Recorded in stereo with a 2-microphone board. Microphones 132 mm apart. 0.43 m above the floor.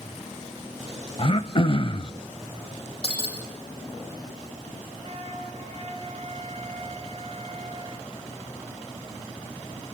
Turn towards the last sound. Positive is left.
turn(degrees=-55)  # may be behind; listen again after turning